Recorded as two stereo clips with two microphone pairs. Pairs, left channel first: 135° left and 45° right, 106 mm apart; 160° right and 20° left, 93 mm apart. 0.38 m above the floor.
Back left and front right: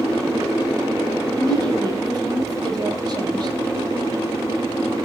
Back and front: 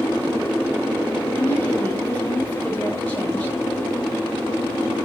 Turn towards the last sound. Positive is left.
turn(degrees=-90)